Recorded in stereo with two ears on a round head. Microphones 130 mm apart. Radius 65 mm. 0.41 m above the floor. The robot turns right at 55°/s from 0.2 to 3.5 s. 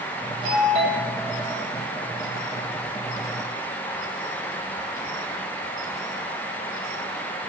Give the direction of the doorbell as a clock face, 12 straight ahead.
4 o'clock.